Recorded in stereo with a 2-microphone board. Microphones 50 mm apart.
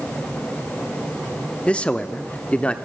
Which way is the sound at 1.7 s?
20° left (ahead or behind).